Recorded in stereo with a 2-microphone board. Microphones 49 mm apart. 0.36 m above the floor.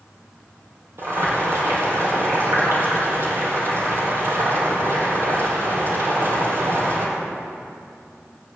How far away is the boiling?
About 6 m.